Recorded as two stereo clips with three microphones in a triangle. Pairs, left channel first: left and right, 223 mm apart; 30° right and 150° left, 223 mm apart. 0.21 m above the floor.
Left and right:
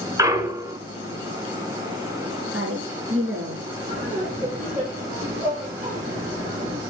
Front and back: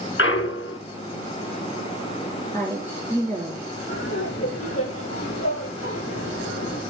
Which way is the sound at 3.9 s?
35° right.